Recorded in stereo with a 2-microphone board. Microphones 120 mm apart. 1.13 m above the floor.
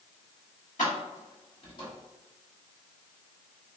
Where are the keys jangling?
75° left (ahead or behind), 1.4 m; by 1.9 s 35° left (ahead or behind), 1.3 m.